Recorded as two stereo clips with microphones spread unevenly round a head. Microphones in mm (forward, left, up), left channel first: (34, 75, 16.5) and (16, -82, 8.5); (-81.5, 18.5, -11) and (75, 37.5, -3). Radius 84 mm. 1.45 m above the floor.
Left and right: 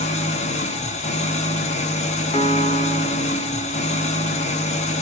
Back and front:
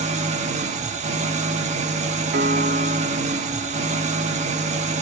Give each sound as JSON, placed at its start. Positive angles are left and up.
{"t": 0.0, "sound": "an engine running", "azimuth_deg": 45, "distance_m": 1.3}
{"t": 2.3, "sound": "a piano", "azimuth_deg": 30, "distance_m": 1.8}